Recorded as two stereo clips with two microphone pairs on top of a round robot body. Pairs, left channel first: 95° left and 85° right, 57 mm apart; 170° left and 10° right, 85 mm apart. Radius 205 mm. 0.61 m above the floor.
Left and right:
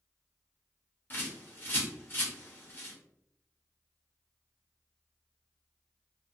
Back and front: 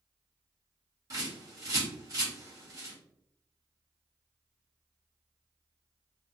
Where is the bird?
40° left, 1.1 m.